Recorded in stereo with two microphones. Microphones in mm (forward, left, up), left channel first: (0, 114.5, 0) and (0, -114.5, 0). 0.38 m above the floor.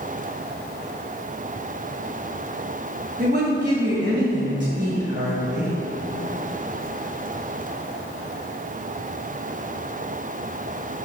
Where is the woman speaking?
45° right (ahead or behind), 1.8 m.